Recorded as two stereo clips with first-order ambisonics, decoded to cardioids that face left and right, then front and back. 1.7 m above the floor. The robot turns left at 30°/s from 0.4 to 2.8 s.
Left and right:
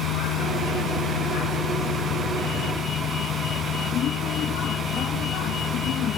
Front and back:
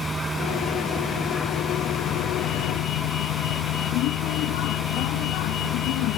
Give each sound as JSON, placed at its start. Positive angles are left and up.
{"t": 0.0, "sound": "a vehicle", "azimuth_deg": 110}